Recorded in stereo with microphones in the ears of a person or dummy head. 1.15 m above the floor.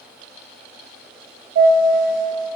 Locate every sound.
1.6 s a chime: 30° right (ahead or behind), 0.7 m